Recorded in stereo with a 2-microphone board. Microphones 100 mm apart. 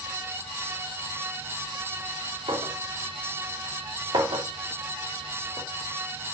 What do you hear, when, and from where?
2.5 s a clink: 60° right (ahead or behind), 3 m